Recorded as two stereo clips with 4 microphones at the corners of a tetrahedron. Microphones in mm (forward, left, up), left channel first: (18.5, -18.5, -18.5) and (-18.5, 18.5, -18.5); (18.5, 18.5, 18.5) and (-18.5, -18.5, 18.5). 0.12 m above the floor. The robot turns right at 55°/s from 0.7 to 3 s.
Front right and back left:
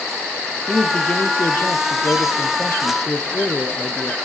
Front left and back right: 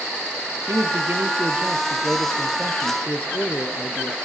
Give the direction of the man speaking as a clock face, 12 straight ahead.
4 o'clock.